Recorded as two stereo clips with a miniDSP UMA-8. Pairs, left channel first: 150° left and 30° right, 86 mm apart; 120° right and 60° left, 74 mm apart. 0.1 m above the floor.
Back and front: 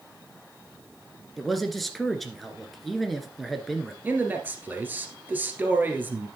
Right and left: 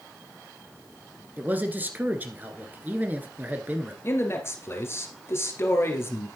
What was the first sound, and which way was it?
A man speaking, 65° left.